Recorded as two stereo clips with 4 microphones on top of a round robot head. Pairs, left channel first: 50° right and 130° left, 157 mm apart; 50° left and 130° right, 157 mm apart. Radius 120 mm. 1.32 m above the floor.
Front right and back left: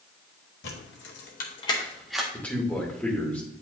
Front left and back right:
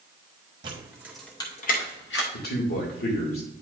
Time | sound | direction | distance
0.6 | keys jangling | 70° right | 1.3 m
2.3 | a man speaking | 35° left | 2.5 m